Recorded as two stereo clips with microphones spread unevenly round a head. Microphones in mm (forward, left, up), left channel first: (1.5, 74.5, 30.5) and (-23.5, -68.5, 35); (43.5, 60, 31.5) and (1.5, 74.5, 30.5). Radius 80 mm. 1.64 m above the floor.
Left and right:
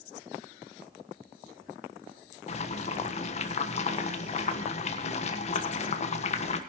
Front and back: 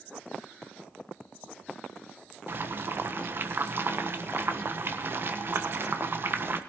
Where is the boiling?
125° left, 1.3 m.